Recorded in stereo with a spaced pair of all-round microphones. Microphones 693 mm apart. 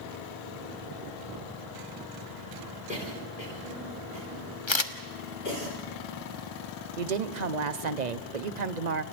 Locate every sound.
2.9 s a cough: 75° left (ahead or behind), 4.5 m
4.7 s a camera shutter: 40° left (ahead or behind), 1.3 m
7.0 s a woman speaking: 70° right (ahead or behind), 1.0 m